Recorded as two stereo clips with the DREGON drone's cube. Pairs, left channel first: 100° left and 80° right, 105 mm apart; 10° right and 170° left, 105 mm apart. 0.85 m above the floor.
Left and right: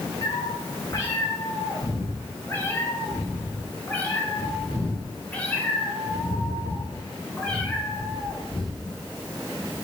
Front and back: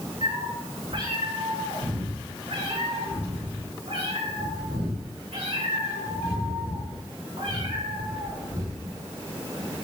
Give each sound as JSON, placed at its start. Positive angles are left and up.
{"t": 0.2, "sound": "a cat meowing", "azimuth_deg": 145, "distance_m": 4.5}